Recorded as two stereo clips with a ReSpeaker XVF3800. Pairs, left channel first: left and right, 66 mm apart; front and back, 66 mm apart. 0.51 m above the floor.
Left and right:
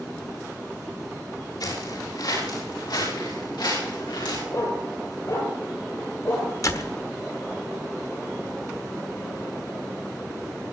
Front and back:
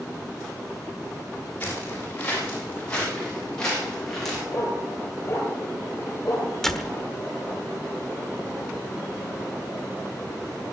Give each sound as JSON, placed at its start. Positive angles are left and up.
{"t": 1.6, "sound": "footsteps", "azimuth_deg": 65, "distance_m": 9.0}
{"t": 4.5, "sound": "a dog barking", "azimuth_deg": 50, "distance_m": 5.0}
{"t": 6.6, "sound": "a door slam", "azimuth_deg": 80, "distance_m": 1.2}